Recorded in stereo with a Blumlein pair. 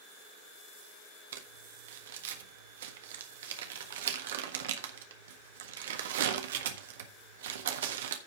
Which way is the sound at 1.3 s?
60° right.